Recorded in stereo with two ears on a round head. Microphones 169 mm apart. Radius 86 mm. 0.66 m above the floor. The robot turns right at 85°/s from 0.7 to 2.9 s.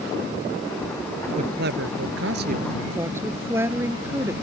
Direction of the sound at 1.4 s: 145° right.